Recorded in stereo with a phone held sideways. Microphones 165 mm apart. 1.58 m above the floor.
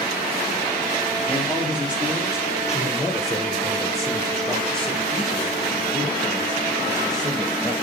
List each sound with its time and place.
1.3 s a man speaking: 10° right (ahead or behind), 4.5 m; by 7.7 s 5° left (ahead or behind), 9.5 m